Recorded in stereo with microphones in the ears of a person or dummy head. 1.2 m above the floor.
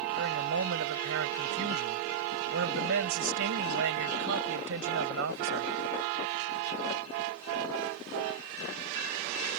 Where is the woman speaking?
65° right (ahead or behind).